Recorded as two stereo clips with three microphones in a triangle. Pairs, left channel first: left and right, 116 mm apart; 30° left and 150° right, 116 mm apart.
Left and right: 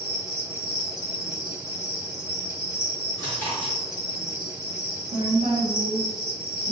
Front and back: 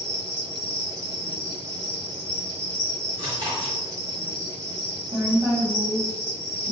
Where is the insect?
165° right, 1.4 m.